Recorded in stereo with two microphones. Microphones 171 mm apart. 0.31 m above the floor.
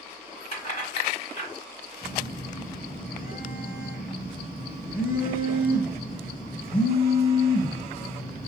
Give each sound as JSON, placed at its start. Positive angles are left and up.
{"t": 0.5, "sound": "keys jangling", "side_deg": 40, "distance_m": 1.3}
{"t": 2.0, "sound": "a phone buzzing", "side_deg": 55, "distance_m": 1.4}